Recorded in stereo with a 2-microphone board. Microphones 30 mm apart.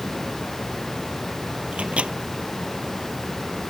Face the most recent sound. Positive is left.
turn(degrees=-40)  # may be behind; listen again after turning